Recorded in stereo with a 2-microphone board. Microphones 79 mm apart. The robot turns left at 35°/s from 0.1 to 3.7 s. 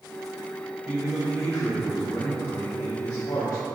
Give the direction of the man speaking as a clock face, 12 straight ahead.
6 o'clock.